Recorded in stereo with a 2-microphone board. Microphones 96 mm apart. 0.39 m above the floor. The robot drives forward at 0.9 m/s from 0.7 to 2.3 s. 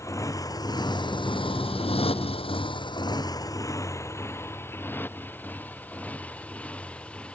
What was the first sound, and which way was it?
A motorcycle, 35° left (ahead or behind).